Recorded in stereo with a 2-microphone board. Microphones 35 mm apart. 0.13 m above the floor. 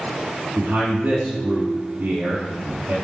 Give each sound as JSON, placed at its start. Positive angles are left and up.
{"t": 0.6, "sound": "a man speaking", "side_deg": -55, "distance_m": 2.5}